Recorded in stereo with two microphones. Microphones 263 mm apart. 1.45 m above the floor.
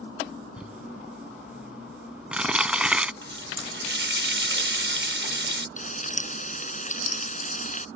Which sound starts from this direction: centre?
Crumpling, at 0.6 s.